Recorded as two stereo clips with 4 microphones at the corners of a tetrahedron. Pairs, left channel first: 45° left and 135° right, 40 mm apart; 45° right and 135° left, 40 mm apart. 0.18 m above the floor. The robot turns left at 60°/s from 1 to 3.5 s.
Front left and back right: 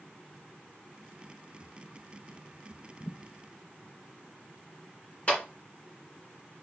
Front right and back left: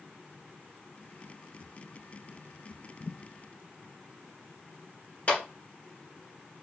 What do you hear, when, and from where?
3.0 s a thud: 5° left, 3.5 m; by 3.2 s 10° right, 3.5 m
5.3 s a clap: 5° right, 2 m